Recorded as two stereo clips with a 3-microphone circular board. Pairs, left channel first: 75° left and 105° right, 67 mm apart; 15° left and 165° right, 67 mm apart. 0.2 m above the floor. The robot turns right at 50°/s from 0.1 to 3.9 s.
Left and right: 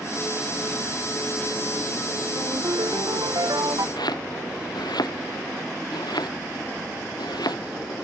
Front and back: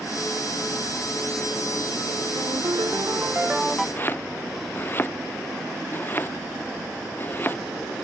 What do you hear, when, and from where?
2.4 s a ringtone: 150° right; by 3.9 s 75° right
4.0 s chopping: 75° left